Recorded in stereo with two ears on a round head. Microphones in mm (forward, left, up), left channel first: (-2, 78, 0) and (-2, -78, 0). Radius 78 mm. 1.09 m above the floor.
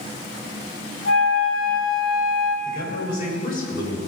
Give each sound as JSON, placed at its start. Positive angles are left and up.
{"t": 1.1, "sound": "a flute", "side_deg": 80, "distance_m": 3.5}
{"t": 2.6, "sound": "a man speaking", "side_deg": 55, "distance_m": 4.5}